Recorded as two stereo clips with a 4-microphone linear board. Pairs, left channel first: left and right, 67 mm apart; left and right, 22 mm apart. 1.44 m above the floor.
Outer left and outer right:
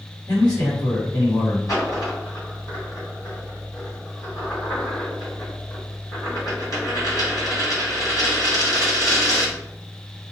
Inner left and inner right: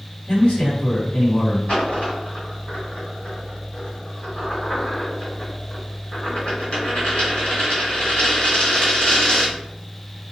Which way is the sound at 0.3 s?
80° left.